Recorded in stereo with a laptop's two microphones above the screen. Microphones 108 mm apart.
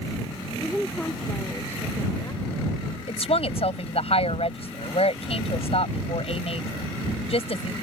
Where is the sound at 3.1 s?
65° left (ahead or behind).